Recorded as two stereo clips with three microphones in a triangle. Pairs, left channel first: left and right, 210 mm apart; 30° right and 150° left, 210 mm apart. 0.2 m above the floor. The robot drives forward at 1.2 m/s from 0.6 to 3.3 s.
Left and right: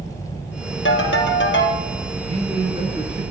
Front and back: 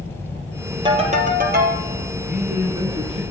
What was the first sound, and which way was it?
A ringtone, 85° left.